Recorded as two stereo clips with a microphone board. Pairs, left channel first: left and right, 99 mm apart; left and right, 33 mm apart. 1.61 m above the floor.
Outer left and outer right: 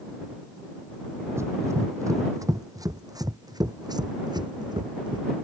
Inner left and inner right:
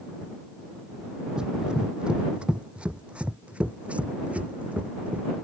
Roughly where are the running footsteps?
Right.